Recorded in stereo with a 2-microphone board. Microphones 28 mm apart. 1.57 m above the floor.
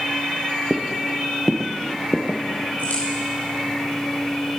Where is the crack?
65° left (ahead or behind), 5 m.